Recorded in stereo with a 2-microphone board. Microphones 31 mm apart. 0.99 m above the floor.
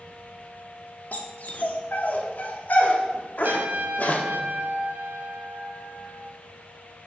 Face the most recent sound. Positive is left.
turn(degrees=-85)